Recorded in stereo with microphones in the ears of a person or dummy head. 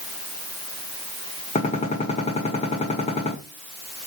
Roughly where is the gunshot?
Left.